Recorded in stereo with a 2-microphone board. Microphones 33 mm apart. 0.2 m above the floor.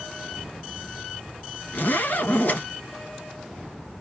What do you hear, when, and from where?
1.7 s a zipper: 65° left (ahead or behind), 1.8 m